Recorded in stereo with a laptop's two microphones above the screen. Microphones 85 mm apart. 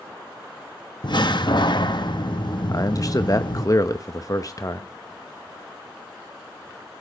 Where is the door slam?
60° left (ahead or behind), 0.9 m.